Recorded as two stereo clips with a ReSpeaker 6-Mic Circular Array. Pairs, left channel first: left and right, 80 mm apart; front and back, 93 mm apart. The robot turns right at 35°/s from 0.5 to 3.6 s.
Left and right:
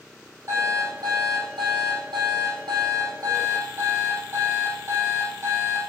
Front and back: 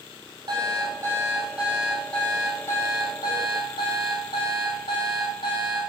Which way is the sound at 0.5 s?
145° right.